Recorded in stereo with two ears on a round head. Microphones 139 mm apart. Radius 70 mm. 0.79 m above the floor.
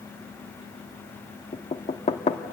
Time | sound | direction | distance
1.5 | knocking | 40° left (ahead or behind) | 1.1 m